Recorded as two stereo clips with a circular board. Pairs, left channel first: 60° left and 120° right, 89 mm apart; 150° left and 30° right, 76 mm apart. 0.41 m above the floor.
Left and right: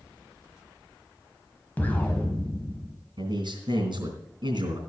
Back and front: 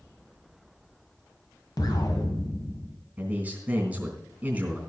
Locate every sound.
1.8 s an explosion: 130° left, 1.5 m
3.2 s a man speaking: 100° right, 3 m